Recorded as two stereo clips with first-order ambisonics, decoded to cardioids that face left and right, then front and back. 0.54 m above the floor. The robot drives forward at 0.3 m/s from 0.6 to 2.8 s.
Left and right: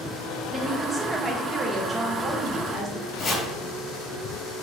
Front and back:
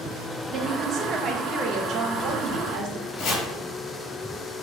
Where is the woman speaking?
165° right, 0.6 m; by 3.1 s 175° right, 1.1 m.